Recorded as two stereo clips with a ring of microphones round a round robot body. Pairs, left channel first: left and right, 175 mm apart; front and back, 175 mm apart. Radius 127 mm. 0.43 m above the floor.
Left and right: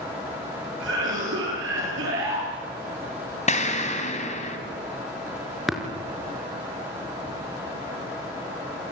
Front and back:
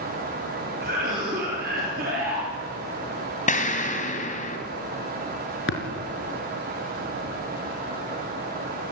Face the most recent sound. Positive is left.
turn(degrees=0)